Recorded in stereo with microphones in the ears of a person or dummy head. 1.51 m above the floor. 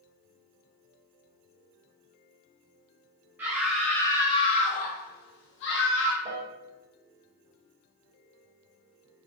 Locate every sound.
3.4 s a scream: 10° right (ahead or behind), 0.8 m; by 6.2 s 70° left (ahead or behind), 1.4 m
6.2 s a piano: 25° right (ahead or behind), 0.7 m